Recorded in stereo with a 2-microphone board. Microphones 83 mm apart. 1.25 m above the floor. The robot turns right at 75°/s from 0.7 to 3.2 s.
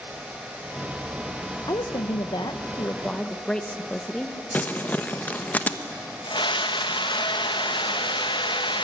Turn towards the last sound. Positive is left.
turn(degrees=75)  # may be behind; listen again after turning